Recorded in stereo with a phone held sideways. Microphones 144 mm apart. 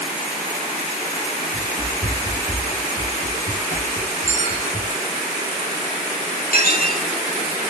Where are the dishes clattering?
65° left (ahead or behind), 2 m.